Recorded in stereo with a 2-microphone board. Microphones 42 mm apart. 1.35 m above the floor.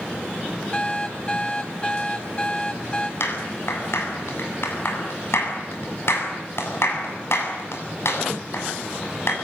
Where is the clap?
70° left (ahead or behind), 7.5 m.